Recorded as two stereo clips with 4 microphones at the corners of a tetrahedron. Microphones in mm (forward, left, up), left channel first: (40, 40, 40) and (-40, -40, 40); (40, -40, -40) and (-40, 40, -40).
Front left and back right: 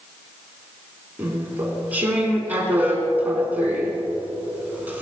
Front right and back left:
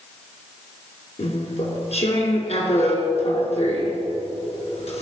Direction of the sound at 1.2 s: 60° right.